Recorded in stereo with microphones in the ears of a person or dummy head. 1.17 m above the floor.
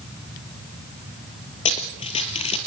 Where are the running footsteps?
30° left (ahead or behind), 1.8 m.